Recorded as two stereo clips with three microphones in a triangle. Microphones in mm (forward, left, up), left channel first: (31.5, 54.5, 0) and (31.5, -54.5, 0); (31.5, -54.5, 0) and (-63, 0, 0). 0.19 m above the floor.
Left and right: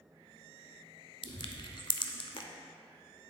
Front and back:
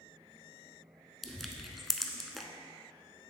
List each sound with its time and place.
1.2 s crushing: 60° left, 0.5 m